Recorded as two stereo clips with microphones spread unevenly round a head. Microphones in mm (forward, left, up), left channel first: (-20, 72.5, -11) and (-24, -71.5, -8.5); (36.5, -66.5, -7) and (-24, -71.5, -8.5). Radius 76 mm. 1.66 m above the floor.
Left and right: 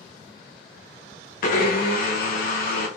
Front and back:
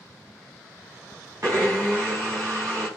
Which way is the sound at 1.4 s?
115° left.